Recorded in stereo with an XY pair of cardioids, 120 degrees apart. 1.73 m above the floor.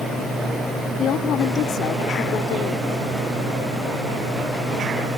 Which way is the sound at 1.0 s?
65° left.